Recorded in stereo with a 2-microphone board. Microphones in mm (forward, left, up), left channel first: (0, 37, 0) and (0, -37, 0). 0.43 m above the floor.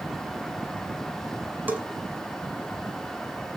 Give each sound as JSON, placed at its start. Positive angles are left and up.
{"t": 1.7, "sound": "a bell", "side_deg": -25, "distance_m": 1.8}